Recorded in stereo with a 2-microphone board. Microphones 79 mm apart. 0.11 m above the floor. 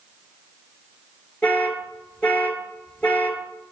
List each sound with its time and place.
1.4 s an alarm: 20° left (ahead or behind), 1.5 m